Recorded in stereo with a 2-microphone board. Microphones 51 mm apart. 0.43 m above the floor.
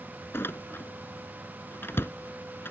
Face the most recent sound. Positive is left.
turn(degrees=45)  # may be behind; listen again after turning